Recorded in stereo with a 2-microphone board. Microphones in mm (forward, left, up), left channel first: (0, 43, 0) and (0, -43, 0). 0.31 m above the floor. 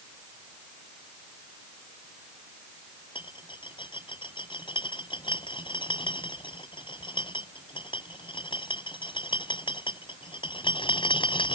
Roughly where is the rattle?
Left.